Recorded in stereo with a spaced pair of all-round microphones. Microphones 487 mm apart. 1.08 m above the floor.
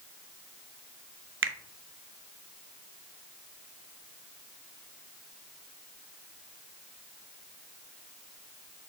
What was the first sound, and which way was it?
A finger snap, 25° right (ahead or behind).